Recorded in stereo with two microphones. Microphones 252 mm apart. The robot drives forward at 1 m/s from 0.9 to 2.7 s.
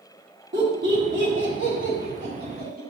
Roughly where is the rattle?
No rattle in this recording.